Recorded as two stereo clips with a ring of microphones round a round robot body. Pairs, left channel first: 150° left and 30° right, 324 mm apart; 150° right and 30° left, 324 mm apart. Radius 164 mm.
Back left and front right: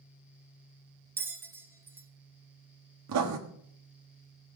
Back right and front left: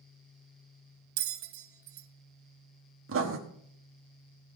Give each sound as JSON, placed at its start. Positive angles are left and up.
{"t": 1.2, "sound": "a bell", "azimuth_deg": 50, "distance_m": 0.6}
{"t": 3.1, "sound": "writing", "azimuth_deg": -10, "distance_m": 1.3}